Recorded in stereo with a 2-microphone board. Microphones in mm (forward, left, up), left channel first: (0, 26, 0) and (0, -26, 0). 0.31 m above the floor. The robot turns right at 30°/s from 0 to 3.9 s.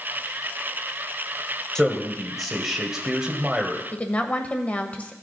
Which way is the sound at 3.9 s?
30° left (ahead or behind).